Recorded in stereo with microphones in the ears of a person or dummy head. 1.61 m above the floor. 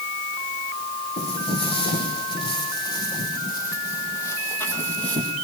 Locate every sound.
1.2 s footsteps: 30° left (ahead or behind), 5 m; by 5.3 s 5° left (ahead or behind), 3 m